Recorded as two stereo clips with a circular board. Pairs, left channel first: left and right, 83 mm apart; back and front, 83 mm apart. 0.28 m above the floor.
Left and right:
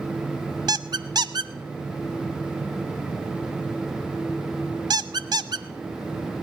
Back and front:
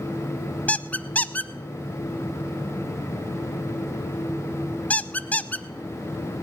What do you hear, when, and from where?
0.7 s a squeak: 110° right, 0.5 m